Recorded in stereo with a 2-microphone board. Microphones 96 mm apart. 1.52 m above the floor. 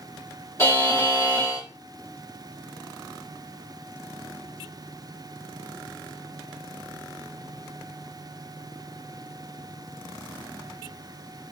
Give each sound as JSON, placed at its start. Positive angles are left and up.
{"t": 0.6, "sound": "a buzzer", "side_deg": 30, "distance_m": 1.5}